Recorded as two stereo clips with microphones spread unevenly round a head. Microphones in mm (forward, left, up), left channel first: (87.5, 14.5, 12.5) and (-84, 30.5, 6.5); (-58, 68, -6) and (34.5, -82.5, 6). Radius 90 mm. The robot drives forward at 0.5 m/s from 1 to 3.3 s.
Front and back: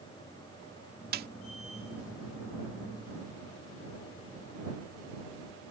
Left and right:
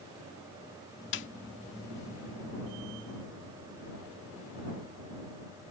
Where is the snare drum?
140° left; by 1.3 s 145° left.